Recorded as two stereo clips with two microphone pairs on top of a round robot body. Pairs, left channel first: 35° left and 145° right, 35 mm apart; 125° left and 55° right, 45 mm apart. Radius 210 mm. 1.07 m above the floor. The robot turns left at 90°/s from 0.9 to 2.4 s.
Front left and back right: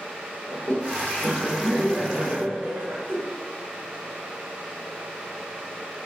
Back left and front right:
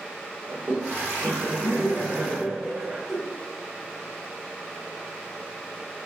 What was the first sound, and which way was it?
Laughter, straight ahead.